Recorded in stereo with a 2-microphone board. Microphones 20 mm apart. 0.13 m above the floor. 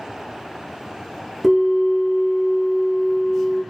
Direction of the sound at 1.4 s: 5° right (ahead or behind).